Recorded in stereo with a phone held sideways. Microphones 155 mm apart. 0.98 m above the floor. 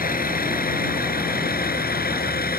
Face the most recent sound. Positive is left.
turn(degrees=90)